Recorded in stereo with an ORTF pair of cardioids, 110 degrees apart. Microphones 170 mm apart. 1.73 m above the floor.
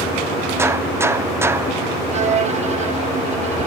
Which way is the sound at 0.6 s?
15° right.